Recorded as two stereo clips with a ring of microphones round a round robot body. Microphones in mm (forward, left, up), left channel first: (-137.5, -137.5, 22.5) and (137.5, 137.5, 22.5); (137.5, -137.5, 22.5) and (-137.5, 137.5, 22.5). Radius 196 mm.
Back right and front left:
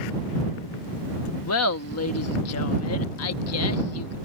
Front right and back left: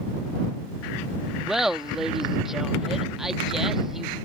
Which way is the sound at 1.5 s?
135° right.